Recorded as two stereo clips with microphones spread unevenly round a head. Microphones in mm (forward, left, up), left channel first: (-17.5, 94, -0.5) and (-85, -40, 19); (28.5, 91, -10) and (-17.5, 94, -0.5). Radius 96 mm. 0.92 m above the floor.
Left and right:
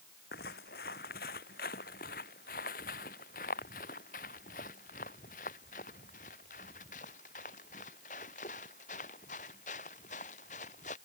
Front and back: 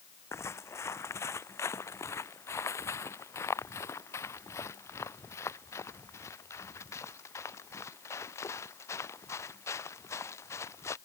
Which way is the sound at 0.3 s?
15° left.